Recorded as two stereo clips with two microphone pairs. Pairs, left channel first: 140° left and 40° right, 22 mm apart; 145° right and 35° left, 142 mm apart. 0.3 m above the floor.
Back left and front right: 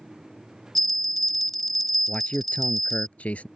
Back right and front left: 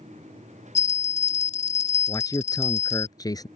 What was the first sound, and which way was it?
A bell, 140° right.